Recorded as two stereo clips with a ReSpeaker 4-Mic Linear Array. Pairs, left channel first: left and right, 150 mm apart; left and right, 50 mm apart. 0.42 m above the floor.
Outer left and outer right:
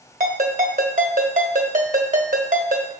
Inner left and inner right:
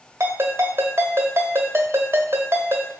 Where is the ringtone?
55° right (ahead or behind), 1.3 m.